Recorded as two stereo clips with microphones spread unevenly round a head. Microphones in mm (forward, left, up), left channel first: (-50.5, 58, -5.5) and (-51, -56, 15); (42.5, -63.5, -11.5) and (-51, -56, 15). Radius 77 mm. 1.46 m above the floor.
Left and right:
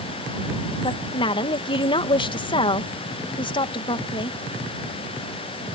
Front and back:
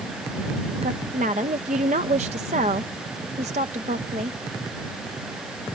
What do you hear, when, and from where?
0.8 s a woman speaking: 135° left